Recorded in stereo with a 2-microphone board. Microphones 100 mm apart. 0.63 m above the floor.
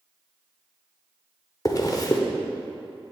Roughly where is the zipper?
Left.